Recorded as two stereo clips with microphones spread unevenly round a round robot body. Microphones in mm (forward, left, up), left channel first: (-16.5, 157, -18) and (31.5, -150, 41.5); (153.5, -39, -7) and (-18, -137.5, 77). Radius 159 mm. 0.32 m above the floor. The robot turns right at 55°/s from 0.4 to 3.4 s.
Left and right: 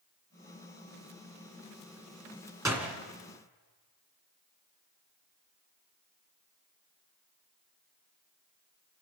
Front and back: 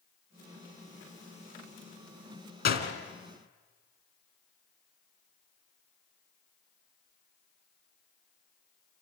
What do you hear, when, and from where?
2.6 s a door slam: straight ahead, 2.5 m; by 2.9 s 20° left, 2.5 m